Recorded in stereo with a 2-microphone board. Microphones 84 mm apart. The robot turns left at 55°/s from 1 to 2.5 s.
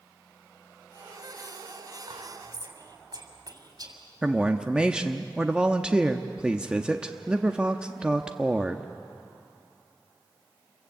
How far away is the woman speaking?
About 0.9 m.